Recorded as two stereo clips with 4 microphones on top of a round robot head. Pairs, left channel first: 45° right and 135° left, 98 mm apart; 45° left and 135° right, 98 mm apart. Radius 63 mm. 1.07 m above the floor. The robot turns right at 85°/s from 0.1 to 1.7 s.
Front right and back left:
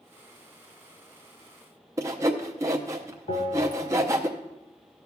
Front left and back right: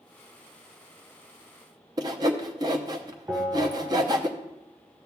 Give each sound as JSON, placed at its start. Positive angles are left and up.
{"t": 2.0, "sound": "sawing", "azimuth_deg": -170, "distance_m": 0.5}
{"t": 3.3, "sound": "a bell", "azimuth_deg": -55, "distance_m": 3.0}